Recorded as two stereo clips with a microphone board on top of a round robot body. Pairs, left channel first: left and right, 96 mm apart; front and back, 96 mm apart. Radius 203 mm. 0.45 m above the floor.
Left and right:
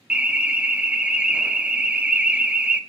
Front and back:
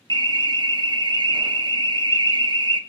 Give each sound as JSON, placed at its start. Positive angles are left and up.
{"t": 0.1, "sound": "an alarm", "azimuth_deg": -165, "distance_m": 1.9}